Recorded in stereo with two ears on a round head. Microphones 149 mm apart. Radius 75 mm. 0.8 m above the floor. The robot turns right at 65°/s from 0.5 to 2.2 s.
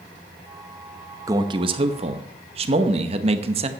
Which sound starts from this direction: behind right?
A man speaking, at 1.3 s.